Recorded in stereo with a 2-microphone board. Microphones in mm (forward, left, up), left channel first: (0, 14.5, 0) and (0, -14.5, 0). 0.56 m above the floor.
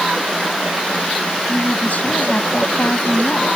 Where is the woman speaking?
65° left (ahead or behind).